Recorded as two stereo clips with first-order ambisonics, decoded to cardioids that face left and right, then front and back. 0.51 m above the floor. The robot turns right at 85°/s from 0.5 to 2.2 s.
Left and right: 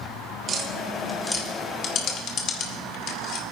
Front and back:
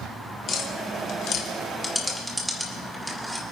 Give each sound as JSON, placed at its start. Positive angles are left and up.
{"t": 0.5, "sound": "tapping", "azimuth_deg": -50, "distance_m": 1.5}